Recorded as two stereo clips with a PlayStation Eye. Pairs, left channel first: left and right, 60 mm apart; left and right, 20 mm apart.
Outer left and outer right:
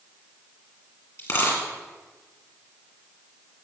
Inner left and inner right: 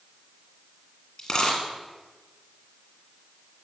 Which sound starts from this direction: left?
A dropped coin, at 1.2 s.